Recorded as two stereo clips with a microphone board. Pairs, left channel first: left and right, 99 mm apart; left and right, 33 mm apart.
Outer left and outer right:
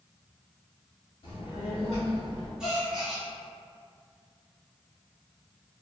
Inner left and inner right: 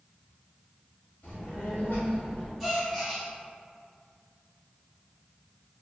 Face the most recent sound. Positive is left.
turn(degrees=-5)  # may be behind; listen again after turning